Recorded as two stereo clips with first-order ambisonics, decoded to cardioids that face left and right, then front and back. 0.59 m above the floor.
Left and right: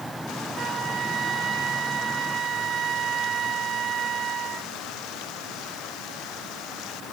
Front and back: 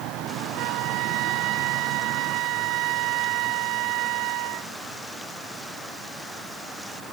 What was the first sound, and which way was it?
A flute, 150° right.